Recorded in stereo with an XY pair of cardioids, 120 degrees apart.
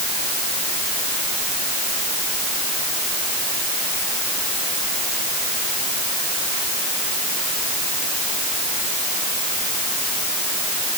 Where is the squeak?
I don't hear a squeak.